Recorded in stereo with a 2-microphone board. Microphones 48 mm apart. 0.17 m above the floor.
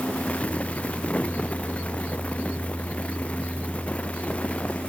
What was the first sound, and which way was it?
Only background noise.